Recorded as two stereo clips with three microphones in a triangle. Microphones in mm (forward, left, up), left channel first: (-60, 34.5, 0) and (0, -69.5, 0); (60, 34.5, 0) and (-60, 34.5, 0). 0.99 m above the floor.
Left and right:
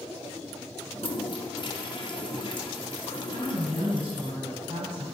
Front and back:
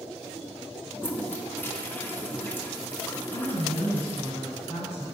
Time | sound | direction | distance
0.9 | a toilet flushing | 75° left | 0.8 m
3.3 | a woman speaking | 15° right | 3 m